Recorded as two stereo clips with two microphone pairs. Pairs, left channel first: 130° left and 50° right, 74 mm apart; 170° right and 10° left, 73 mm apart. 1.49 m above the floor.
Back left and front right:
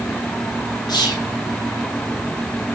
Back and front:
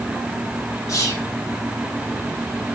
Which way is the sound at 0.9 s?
150° left.